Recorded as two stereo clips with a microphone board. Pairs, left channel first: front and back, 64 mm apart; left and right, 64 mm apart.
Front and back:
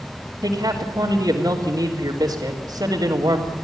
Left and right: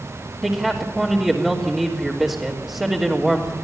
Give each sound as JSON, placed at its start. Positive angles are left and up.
{"t": 0.4, "sound": "a man speaking", "azimuth_deg": -170, "distance_m": 3.5}